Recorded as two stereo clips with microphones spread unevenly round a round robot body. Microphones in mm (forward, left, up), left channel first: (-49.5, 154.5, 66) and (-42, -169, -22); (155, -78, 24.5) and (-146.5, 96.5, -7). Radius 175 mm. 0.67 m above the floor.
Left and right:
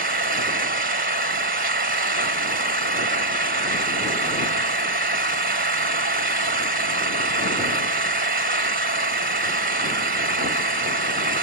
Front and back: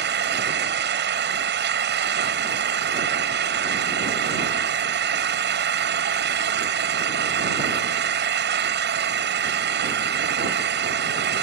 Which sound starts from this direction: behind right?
An engine running, at 0.0 s.